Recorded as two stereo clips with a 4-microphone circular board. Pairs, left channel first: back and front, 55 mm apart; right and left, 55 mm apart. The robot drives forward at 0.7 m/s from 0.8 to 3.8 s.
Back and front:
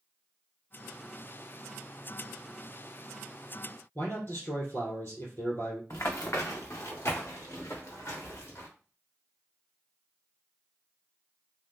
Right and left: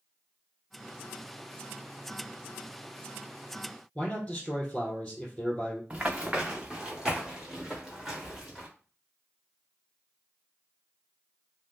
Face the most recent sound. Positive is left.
turn(degrees=175)